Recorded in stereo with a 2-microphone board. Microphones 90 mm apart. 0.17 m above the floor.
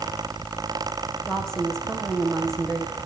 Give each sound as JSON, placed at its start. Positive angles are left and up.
{"t": 1.3, "sound": "a woman speaking", "side_deg": 5, "distance_m": 10.0}